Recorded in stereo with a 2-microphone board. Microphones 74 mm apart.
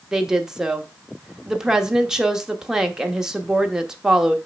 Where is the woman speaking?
10° right (ahead or behind), 1.1 m.